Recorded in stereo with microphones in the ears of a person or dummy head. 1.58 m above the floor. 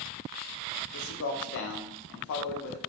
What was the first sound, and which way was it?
A man speaking, 65° left (ahead or behind).